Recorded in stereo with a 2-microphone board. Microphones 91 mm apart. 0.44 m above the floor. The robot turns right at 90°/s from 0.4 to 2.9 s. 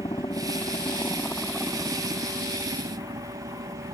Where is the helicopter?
65° left (ahead or behind); by 4.0 s 55° right (ahead or behind).